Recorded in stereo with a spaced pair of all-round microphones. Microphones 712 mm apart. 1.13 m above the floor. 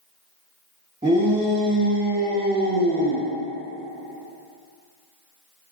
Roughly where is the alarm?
I don't hear an alarm.